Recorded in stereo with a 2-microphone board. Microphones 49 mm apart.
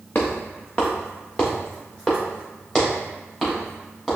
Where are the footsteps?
40° left (ahead or behind), 1.2 m; by 4.2 s 10° left (ahead or behind), 3 m.